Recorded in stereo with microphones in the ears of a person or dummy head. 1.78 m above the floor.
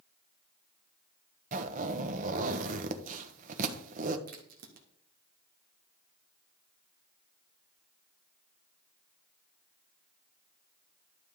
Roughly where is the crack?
Right.